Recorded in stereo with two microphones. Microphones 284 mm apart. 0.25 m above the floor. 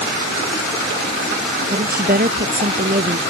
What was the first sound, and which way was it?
A woman speaking, 30° right (ahead or behind).